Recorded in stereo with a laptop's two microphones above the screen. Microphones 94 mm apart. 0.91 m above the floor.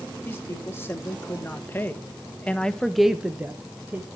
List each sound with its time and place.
0.2 s a woman speaking: 25° left (ahead or behind), 1.9 m; by 4.1 s 20° right (ahead or behind), 0.9 m